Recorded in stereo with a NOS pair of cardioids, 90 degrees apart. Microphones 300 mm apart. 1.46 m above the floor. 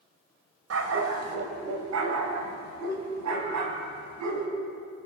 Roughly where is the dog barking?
Ahead right.